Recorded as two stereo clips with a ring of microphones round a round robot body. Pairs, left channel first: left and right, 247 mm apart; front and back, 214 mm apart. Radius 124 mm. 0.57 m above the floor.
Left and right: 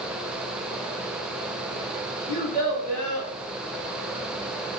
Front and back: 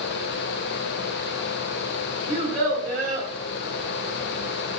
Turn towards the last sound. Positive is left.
turn(degrees=145)